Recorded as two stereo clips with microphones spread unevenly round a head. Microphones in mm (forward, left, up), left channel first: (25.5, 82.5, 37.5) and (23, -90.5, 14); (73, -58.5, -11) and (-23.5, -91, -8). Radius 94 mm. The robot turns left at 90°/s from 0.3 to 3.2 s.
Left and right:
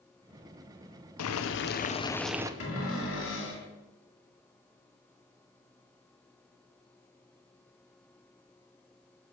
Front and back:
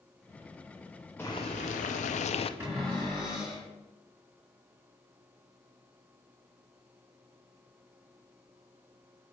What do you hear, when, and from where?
1.2 s boiling: 100° left, 0.5 m; by 2.5 s 20° right, 0.5 m
2.6 s a cupboard door: 125° left, 3 m; by 3.7 s 70° left, 3 m